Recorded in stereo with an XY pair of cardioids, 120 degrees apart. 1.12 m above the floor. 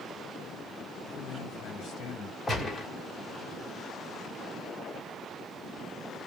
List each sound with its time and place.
1.1 s a man speaking: 65° left, 1.8 m
2.5 s a gunshot: 20° left, 2 m